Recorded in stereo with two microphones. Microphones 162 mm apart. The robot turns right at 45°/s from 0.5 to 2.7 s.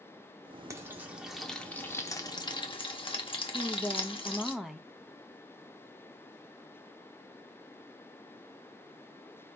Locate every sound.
0.7 s frying: 20° right (ahead or behind), 0.6 m; by 4.5 s 30° left (ahead or behind), 0.6 m
3.5 s a woman speaking: centre (ahead or behind), 0.5 m